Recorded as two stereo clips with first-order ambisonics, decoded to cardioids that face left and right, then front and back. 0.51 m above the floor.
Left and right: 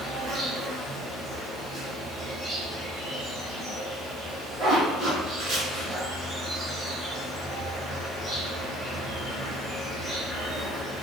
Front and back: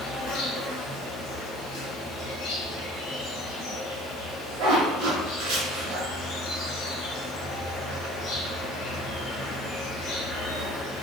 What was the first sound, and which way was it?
An insect, 5° left.